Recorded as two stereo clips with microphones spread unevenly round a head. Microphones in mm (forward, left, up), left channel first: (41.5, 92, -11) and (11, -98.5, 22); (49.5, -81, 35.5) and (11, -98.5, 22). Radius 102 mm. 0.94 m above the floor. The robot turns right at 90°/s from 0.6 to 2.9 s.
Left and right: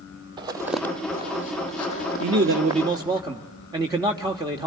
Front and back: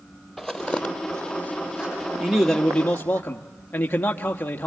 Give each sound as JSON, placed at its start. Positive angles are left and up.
{"t": 0.4, "sound": "footsteps", "azimuth_deg": -40, "distance_m": 1.6}
{"t": 2.2, "sound": "a man speaking", "azimuth_deg": -90, "distance_m": 1.3}